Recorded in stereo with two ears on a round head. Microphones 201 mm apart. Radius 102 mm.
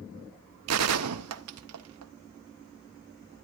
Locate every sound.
0.7 s a gunshot: 80° right, 0.9 m